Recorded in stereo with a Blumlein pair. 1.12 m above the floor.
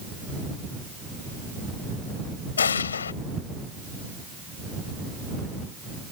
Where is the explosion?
70° left.